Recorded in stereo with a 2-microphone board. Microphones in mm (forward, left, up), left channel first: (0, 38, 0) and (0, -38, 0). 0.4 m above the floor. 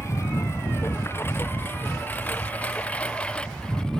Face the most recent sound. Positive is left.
turn(degrees=10)  # may be behind; listen again after turning